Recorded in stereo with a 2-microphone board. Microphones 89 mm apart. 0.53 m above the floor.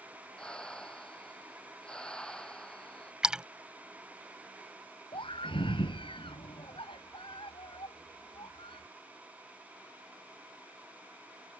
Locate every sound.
0.4 s breathing: 10° left (ahead or behind)
3.2 s a splash: 10° right (ahead or behind)
5.1 s a scream: 70° left (ahead or behind)